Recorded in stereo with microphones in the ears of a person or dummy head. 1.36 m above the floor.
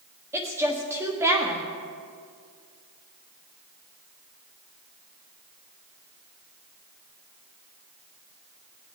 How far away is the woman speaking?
About 1.5 m.